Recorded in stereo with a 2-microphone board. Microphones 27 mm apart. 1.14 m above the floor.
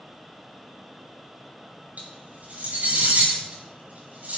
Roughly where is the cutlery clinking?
Right.